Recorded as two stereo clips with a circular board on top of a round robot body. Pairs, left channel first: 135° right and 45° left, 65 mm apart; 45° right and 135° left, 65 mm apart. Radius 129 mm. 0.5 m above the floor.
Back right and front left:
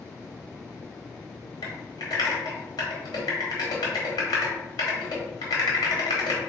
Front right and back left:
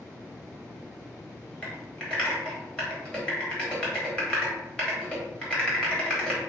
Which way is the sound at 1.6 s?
125° right.